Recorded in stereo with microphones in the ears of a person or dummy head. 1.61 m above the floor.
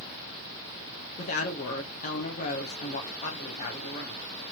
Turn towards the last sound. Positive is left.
turn(degrees=40)  # may be behind; listen again after turning